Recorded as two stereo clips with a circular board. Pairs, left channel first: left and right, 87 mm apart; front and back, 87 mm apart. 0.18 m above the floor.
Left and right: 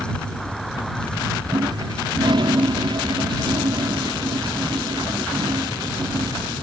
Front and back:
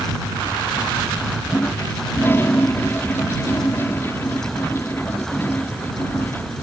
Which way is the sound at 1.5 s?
65° right.